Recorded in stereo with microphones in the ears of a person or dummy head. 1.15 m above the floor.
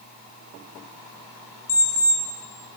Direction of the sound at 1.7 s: 15° left (ahead or behind).